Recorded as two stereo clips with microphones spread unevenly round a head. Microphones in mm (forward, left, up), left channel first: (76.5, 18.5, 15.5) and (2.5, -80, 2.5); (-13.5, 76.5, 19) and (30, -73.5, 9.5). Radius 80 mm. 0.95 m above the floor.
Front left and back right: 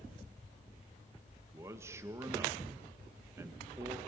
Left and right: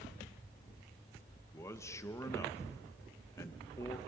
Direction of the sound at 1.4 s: 175° left.